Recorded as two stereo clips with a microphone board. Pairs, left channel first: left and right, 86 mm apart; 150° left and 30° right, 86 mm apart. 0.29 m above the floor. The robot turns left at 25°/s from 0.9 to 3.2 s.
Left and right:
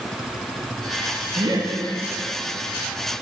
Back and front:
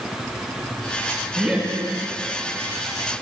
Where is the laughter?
100° right, 3 m; by 1.7 s 110° right, 3 m.